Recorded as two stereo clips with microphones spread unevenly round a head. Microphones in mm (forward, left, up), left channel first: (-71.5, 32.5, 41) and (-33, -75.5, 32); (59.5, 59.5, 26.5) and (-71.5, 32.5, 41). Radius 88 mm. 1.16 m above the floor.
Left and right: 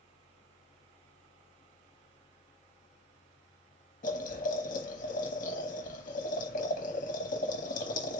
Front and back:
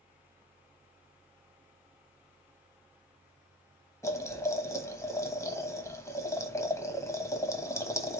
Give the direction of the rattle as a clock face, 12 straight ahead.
I don't hear a rattle.